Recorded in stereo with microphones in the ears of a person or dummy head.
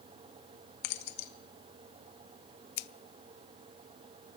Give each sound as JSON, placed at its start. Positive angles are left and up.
{"t": 0.8, "sound": "keys jangling", "side_deg": 65, "distance_m": 1.1}
{"t": 2.8, "sound": "scissors", "side_deg": 60, "distance_m": 0.6}